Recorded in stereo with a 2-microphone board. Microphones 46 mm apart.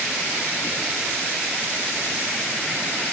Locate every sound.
Only background noise.